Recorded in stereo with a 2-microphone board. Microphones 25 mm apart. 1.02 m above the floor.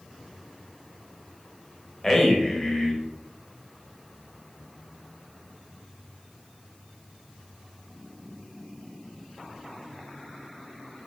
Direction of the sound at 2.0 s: 20° left (ahead or behind).